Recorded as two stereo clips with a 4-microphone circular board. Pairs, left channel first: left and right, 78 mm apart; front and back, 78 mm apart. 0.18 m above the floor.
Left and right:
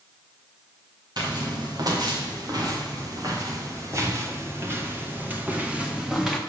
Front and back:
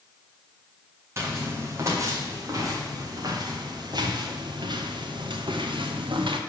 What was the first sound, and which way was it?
Footsteps, 125° right.